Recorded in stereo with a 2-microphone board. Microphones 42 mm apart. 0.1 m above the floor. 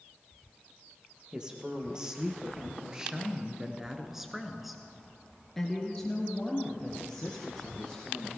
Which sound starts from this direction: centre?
A woman speaking, at 1.3 s.